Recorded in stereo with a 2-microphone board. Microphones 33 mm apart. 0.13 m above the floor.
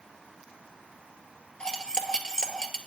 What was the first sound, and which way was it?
Cutlery clinking, 20° left (ahead or behind).